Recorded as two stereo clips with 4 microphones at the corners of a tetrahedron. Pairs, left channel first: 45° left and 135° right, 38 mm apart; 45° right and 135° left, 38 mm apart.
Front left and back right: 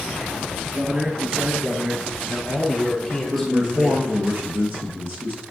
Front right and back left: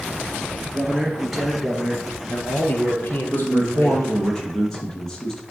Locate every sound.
0.7 s a man speaking: 170° right, 1.3 m; by 4.1 s 35° right, 2.5 m
3.3 s a man speaking: 120° right, 2 m